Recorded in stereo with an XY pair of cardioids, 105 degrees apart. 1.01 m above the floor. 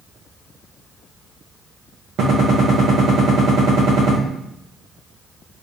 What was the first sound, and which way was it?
A gunshot, 65° right.